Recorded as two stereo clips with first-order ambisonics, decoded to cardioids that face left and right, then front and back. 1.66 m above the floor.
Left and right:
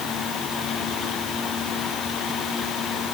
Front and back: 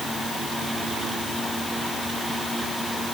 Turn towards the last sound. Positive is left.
No sound to turn to.